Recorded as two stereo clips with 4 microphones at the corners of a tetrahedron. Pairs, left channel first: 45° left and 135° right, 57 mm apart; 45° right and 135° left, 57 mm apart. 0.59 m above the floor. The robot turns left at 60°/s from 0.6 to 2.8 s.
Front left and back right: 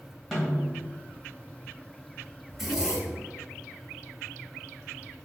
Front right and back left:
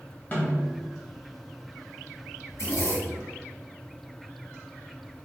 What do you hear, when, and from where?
0.3 s a snare drum: 50° right, 1.2 m; by 0.8 s 60° right, 1.2 m
2.5 s a zipper: 40° right, 0.9 m; by 3.3 s 60° right, 0.9 m